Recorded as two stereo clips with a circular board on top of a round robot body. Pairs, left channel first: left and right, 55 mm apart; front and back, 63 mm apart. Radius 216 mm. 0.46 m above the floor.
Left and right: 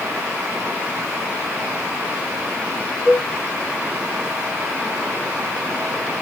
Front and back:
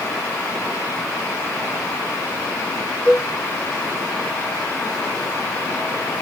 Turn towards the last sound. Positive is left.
turn(degrees=-60)